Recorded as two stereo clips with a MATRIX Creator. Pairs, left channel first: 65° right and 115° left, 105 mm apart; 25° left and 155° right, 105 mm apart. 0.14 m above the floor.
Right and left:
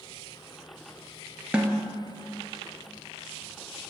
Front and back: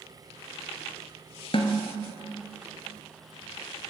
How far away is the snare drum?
About 1.0 m.